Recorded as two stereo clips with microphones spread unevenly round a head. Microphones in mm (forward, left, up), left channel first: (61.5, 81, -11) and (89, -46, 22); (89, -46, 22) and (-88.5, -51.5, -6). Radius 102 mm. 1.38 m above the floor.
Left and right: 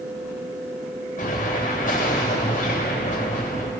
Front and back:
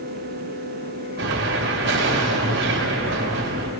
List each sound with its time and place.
1.2 s an explosion: 145° left, 3.5 m